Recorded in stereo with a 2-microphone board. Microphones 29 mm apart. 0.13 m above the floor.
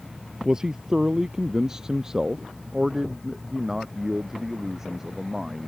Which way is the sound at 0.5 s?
20° right (ahead or behind).